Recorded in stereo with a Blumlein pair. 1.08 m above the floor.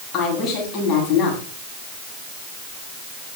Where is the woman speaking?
30° left, 9.5 m.